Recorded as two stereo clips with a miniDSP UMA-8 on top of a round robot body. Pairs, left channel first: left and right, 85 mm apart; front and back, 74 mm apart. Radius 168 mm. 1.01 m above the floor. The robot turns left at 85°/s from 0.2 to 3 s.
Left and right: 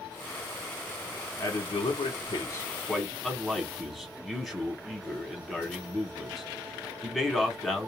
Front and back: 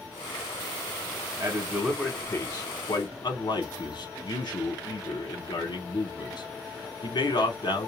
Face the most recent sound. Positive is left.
turn(degrees=0)